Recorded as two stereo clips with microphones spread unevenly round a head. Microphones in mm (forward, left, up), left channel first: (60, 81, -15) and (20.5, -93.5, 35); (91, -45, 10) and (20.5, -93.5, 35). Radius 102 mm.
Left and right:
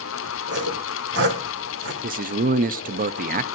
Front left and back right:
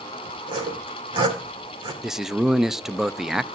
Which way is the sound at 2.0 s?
60° right.